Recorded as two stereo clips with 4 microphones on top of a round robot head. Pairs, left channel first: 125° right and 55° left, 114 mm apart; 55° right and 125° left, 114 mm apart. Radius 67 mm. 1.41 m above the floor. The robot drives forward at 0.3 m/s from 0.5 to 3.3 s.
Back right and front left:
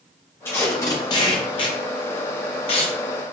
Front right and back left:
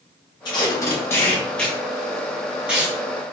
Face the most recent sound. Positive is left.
turn(degrees=-160)